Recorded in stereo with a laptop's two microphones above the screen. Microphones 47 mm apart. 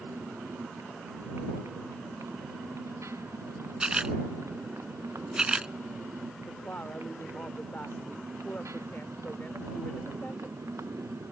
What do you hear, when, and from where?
0.0 s a motorcycle: 85° right
3.8 s a camera shutter: 20° right (ahead or behind)
6.5 s a woman speaking: 40° left (ahead or behind)